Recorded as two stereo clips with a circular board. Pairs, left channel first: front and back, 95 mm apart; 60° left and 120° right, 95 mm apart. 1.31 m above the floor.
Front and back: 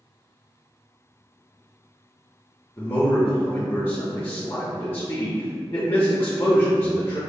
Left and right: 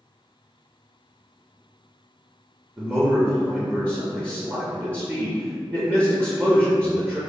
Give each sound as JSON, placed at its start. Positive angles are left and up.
{"t": 2.8, "sound": "a man speaking", "azimuth_deg": -55, "distance_m": 0.6}